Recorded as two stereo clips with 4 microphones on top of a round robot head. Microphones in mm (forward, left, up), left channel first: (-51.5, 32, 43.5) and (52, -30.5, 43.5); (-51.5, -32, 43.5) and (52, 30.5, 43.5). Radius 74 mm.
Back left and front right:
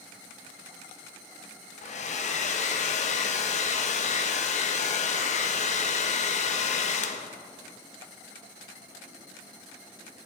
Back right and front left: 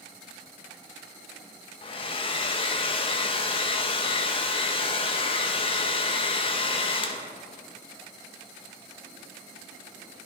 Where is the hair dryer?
170° left, 0.5 m.